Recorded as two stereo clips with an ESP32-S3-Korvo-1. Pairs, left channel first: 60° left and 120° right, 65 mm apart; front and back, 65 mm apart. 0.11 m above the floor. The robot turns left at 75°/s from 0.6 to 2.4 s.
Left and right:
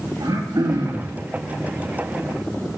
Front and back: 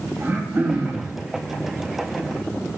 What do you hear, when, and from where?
0.2 s throat clearing: 120° right, 2.5 m; by 1.1 s 160° right, 2.5 m